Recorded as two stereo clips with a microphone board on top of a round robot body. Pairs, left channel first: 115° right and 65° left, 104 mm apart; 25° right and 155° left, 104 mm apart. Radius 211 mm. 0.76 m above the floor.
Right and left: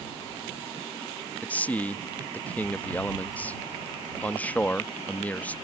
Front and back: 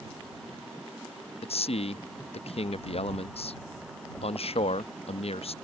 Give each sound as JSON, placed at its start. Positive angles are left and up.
{"t": 1.4, "sound": "a man speaking", "azimuth_deg": -35}